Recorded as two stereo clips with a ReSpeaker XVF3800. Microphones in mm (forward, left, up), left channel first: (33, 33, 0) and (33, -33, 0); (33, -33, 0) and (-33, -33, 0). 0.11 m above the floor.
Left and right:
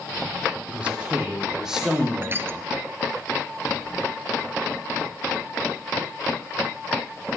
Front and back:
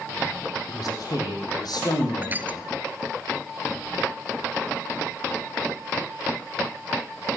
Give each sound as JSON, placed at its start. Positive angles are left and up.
{"t": 0.7, "sound": "a man speaking", "azimuth_deg": -20, "distance_m": 4.5}
{"t": 2.2, "sound": "crushing", "azimuth_deg": -130, "distance_m": 0.6}